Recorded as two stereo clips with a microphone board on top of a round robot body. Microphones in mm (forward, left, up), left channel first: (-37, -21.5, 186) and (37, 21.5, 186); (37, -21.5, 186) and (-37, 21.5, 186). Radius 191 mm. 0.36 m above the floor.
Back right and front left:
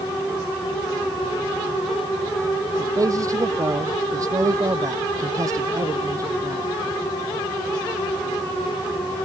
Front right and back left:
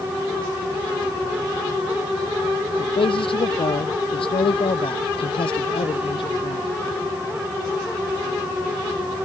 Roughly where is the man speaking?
Ahead.